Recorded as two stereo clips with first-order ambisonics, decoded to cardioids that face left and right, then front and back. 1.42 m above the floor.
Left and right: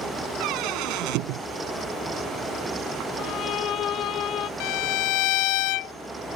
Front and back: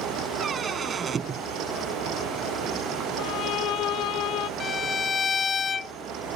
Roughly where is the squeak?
Right.